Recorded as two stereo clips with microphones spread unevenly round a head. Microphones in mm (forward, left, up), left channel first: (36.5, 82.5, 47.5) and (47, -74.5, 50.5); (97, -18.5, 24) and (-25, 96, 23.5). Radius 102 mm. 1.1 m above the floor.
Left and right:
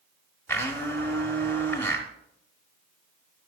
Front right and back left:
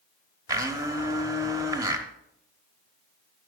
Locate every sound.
0.5 s a blender: 155° left, 0.9 m